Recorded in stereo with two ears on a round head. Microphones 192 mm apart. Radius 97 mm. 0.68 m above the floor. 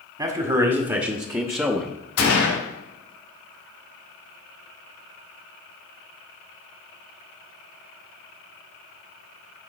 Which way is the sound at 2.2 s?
70° left (ahead or behind).